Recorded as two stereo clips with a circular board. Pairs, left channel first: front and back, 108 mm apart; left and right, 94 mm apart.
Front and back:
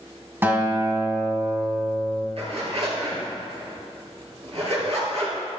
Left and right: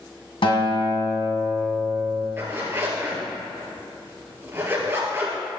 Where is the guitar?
110° left, 1.9 m.